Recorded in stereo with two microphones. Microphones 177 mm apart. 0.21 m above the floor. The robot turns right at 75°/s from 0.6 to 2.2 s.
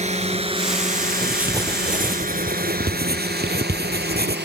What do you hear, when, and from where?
0.0 s a drone: 40° right (ahead or behind); by 4.5 s 70° right (ahead or behind)
1.2 s writing: 175° left; by 4.4 s 110° right